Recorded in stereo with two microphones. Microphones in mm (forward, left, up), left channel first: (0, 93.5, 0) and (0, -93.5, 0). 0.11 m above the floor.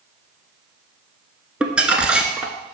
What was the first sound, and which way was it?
Crumpling, 5° right (ahead or behind).